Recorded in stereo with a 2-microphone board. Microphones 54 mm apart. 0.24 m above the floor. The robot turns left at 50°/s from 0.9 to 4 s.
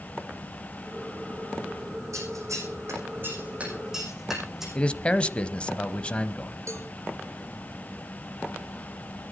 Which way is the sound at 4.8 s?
20° left (ahead or behind).